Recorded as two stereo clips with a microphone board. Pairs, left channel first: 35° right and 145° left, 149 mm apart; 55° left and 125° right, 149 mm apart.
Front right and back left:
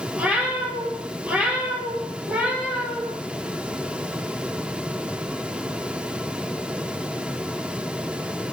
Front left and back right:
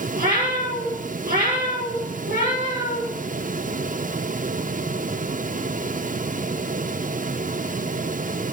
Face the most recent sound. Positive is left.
turn(degrees=-135)